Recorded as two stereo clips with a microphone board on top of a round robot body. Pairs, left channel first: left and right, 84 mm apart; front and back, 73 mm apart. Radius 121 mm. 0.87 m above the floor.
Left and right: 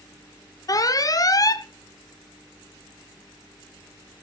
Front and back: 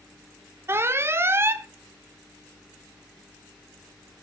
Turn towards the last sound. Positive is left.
turn(degrees=130)